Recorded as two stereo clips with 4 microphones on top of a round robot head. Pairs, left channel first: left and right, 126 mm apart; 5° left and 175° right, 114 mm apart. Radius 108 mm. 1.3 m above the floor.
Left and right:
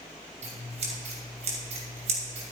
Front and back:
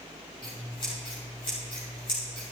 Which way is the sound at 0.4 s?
60° right.